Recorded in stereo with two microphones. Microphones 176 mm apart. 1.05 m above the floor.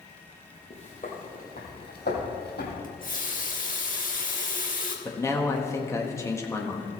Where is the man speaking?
15° left (ahead or behind), 1.5 m.